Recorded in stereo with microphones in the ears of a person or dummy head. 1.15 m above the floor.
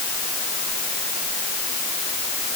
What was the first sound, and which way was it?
Only background noise.